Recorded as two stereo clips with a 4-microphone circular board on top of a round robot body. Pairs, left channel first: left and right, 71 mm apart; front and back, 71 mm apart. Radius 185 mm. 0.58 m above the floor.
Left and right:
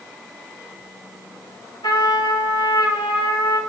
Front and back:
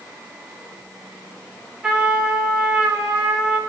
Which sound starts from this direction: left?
A trumpet, at 1.8 s.